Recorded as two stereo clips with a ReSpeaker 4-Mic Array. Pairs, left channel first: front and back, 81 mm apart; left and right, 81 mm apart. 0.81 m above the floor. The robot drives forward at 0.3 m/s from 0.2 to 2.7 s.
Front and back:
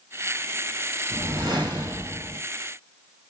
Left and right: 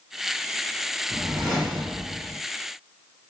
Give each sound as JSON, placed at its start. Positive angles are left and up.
{"t": 1.1, "sound": "a whoosh", "azimuth_deg": -175, "distance_m": 1.4}